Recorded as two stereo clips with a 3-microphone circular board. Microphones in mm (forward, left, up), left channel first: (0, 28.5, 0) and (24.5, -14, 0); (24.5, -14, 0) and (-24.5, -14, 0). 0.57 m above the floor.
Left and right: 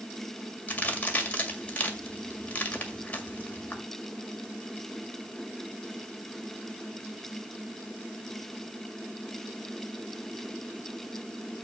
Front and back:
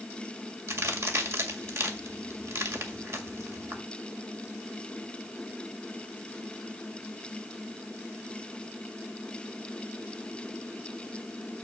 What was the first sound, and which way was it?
A crack, straight behind.